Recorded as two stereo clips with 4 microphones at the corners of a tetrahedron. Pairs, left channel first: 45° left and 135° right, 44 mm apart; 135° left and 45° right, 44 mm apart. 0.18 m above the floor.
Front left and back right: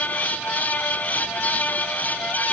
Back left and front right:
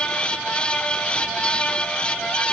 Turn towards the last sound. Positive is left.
No sound to turn to.